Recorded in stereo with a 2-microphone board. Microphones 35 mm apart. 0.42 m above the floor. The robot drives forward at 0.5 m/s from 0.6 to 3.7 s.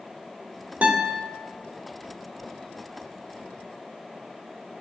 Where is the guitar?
40° right (ahead or behind), 1.8 m.